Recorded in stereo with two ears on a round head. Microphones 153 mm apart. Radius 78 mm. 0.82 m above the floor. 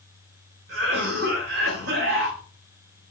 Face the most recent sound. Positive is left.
turn(degrees=-75)  # may be behind; listen again after turning